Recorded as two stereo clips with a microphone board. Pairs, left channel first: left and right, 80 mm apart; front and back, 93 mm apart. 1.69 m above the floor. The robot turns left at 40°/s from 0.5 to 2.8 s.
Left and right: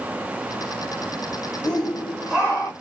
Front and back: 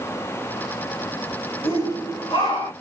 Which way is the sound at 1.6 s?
15° left.